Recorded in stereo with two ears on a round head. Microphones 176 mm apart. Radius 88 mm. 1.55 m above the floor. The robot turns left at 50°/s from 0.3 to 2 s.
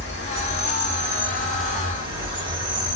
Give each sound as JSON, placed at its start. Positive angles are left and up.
{"t": 0.0, "sound": "an insect", "azimuth_deg": 60, "distance_m": 2.0}